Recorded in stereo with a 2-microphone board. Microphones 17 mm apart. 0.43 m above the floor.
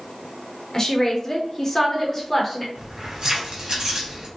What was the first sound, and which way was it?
A woman speaking, 25° left (ahead or behind).